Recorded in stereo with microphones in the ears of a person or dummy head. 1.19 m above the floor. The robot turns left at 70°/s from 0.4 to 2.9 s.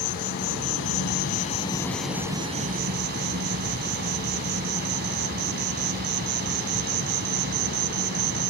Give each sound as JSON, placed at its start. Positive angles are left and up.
{"t": 0.0, "sound": "an insect", "azimuth_deg": 115}